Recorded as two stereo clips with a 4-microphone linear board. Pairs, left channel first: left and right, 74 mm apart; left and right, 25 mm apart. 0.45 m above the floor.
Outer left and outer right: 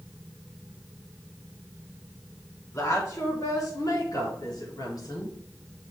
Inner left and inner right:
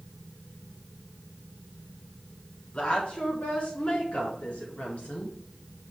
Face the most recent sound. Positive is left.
turn(degrees=65)  # may be behind; listen again after turning